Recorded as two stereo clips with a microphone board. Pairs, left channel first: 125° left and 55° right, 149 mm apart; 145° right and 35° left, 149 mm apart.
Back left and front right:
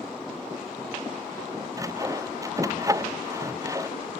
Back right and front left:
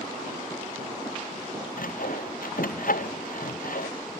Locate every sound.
1.8 s sawing: 125° right